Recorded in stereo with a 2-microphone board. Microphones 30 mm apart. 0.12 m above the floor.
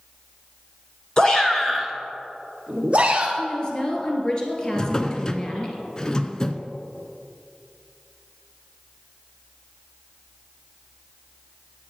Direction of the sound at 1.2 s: 25° left (ahead or behind).